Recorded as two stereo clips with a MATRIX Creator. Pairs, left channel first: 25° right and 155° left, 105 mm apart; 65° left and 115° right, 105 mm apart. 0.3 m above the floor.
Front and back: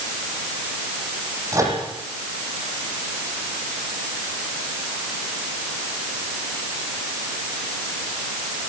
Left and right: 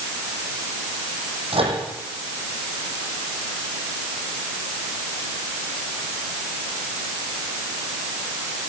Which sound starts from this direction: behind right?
A microwave, at 1.5 s.